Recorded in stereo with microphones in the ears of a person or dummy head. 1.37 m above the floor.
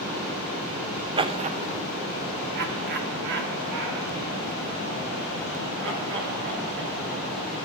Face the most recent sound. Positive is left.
turn(degrees=-70)  # may be behind; listen again after turning